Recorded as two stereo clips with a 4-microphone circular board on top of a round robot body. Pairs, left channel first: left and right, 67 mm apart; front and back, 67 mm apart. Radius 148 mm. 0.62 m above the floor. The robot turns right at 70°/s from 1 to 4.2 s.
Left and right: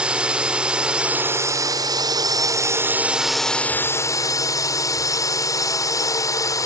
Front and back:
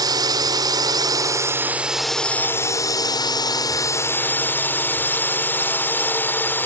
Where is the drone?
165° right; by 6.7 s 60° left.